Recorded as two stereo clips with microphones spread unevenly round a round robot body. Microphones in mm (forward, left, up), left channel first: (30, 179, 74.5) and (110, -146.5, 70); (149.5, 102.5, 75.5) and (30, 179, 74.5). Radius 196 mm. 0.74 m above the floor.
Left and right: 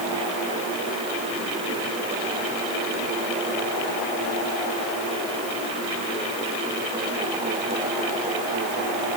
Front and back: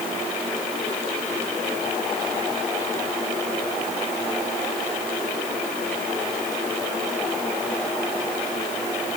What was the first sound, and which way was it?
Only background noise.